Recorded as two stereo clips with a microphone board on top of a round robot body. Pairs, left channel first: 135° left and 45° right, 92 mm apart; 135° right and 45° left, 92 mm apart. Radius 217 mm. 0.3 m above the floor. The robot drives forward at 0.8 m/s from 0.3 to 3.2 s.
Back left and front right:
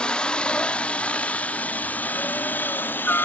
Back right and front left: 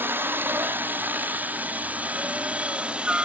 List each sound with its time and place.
0.0 s a helicopter: 70° left; by 3.2 s 105° left